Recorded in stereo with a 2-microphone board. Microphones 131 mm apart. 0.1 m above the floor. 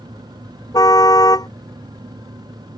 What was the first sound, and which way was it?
A car horn, 30° left (ahead or behind).